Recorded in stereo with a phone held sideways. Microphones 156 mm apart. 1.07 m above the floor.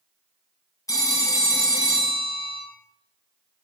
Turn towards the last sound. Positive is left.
turn(degrees=20)  # may be behind; listen again after turning